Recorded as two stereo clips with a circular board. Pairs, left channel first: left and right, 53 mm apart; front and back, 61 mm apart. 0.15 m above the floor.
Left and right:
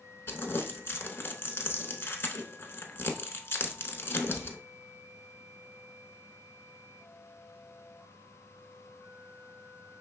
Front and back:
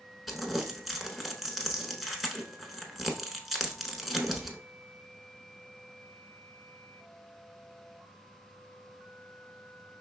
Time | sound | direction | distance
0.3 | crumpling | 90° left | 0.9 m